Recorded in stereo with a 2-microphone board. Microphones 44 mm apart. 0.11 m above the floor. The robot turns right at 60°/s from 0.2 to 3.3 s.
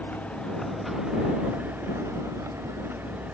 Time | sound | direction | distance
0.0 | a vehicle | 35° left (ahead or behind) | ?